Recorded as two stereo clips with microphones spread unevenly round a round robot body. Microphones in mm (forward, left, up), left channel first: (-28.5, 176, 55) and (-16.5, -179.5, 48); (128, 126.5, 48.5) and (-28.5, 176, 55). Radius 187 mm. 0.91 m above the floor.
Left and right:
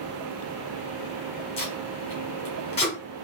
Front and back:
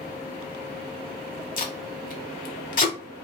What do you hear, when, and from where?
1.6 s tape being pulled: 20° left, 1.0 m